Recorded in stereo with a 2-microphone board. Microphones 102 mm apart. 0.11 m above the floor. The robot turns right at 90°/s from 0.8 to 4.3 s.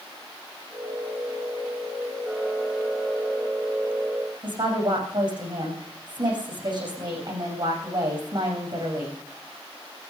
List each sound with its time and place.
4.4 s a woman speaking: 50° right (ahead or behind), 7 m